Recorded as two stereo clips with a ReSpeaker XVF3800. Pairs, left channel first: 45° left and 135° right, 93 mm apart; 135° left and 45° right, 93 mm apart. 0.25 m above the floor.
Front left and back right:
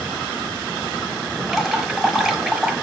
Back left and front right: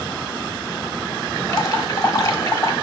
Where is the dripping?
145° left, 1.2 m.